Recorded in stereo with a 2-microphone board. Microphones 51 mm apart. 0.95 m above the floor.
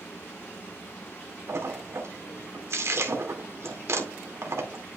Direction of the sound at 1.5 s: 70° right (ahead or behind).